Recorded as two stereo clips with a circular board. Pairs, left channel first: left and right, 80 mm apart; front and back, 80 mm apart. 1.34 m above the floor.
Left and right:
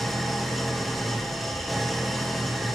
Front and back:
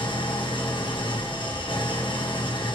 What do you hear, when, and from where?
0.0 s an engine running: straight ahead, 1.4 m